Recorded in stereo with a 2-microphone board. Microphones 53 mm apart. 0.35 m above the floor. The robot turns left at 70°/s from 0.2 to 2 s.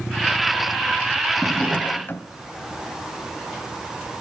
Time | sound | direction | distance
1.4 | a drawer | straight behind | 0.9 m